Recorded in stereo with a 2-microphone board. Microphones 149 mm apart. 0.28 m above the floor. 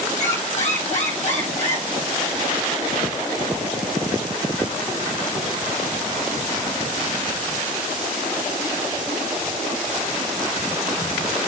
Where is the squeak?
50° left (ahead or behind), 4 m.